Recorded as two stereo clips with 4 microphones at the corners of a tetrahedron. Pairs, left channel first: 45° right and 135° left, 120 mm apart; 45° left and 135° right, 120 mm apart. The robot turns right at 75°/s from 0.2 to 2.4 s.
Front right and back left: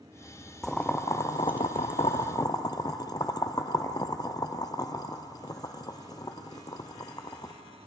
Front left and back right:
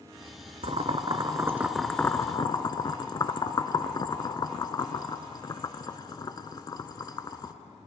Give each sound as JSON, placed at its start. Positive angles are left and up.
{"t": 0.6, "sound": "boiling", "azimuth_deg": -135, "distance_m": 0.6}